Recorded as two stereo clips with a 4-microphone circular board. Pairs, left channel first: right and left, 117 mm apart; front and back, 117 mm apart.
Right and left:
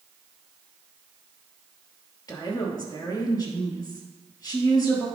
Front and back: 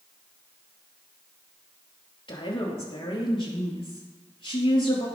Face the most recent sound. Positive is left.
turn(degrees=-40)